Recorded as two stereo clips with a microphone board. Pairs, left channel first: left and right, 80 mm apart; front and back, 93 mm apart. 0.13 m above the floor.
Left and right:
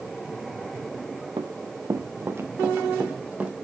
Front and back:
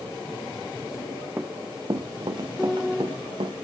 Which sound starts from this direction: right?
Running footsteps, at 1.4 s.